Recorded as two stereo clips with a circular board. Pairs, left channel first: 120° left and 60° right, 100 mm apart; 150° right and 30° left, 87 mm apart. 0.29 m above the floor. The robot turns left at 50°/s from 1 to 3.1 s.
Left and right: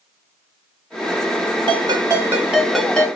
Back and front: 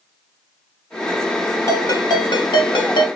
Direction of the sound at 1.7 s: 95° right.